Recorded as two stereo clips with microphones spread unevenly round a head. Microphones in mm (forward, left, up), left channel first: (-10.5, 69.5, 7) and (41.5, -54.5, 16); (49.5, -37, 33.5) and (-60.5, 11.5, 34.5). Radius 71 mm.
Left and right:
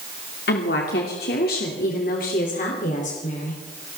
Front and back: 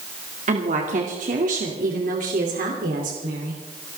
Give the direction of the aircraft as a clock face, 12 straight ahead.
I don't hear an aircraft.